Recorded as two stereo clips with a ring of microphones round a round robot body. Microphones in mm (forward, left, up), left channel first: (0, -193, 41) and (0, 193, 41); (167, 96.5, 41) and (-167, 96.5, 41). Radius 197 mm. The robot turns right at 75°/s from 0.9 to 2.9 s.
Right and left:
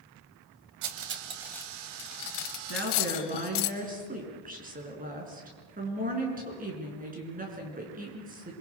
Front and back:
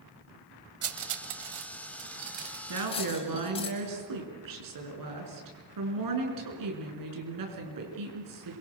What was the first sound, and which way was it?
Cutlery clinking, 135° left.